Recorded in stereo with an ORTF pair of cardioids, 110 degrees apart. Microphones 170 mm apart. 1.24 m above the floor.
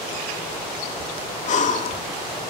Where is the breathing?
45° left, 2 m.